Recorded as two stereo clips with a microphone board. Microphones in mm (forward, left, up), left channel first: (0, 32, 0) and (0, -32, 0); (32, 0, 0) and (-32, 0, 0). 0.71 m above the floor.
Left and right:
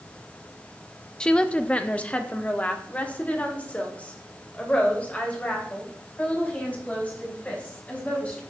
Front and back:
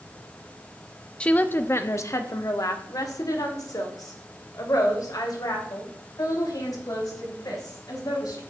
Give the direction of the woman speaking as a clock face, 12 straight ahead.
11 o'clock.